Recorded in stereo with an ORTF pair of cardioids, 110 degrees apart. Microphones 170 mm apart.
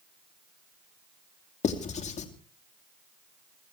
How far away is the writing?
About 2.5 m.